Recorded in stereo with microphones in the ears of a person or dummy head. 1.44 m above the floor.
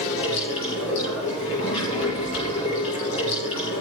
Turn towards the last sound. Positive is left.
turn(degrees=70)  # may be behind; listen again after turning